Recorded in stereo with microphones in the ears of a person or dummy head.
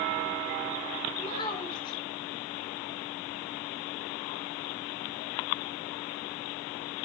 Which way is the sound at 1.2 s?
30° left (ahead or behind).